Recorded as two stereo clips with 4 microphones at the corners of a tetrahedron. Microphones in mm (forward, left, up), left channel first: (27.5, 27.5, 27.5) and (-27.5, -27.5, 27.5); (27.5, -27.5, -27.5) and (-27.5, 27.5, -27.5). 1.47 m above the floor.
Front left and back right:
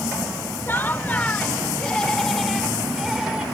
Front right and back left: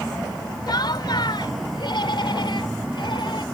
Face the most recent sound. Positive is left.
turn(degrees=-55)